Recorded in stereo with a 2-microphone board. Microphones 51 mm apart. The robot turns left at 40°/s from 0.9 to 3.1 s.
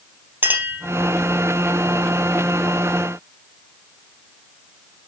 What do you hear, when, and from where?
0.4 s a clink: 35° right (ahead or behind), 2.5 m